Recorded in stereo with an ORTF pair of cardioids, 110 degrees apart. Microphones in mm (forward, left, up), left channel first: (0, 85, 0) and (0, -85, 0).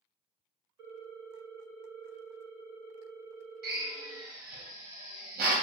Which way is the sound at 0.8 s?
50° right.